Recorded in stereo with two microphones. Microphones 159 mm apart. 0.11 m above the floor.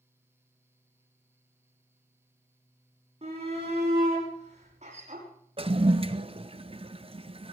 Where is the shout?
45° right (ahead or behind), 8 m; by 5.3 s 50° right (ahead or behind), 6 m.